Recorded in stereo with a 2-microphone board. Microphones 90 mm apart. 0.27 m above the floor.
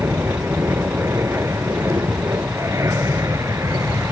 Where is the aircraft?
30° right (ahead or behind); by 4.1 s 35° right (ahead or behind).